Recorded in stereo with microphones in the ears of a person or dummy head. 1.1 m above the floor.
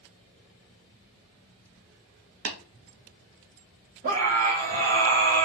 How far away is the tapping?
About 1.8 m.